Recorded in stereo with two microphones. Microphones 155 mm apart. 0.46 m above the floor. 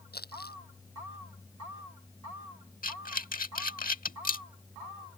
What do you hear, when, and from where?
0.1 s crumpling: 85° left
2.8 s breathing: 65° left (ahead or behind)